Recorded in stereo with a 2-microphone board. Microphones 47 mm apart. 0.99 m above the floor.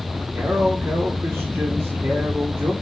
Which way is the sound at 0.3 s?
55° right (ahead or behind).